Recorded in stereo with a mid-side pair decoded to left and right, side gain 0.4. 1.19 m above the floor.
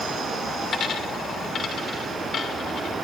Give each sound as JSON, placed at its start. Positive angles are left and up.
{"t": 0.7, "sound": "a dropped coin", "azimuth_deg": 60, "distance_m": 2.5}